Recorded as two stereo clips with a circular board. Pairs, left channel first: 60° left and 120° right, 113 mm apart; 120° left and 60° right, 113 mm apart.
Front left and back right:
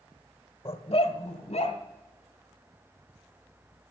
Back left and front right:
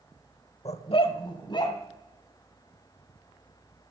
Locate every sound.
0.7 s a dog barking: 100° left, 0.9 m; by 1.8 s 70° left, 2.5 m